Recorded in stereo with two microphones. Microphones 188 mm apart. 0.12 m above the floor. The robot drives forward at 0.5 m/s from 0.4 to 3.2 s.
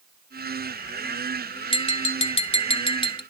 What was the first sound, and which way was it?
Tapping, 30° left (ahead or behind).